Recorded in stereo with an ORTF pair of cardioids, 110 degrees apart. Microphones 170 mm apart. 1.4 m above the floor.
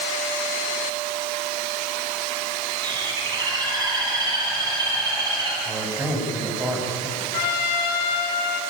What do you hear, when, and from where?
2.8 s a bird: 25° right, 9 m
5.7 s a man speaking: 15° right, 8.5 m
7.3 s a trumpet: 70° left, 4.5 m